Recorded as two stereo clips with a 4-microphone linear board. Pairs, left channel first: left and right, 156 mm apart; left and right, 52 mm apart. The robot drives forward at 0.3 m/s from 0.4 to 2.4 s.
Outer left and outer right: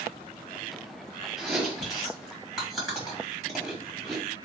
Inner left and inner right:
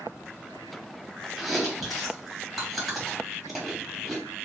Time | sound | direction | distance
1.4 | chewing | centre (ahead or behind) | 2.5 m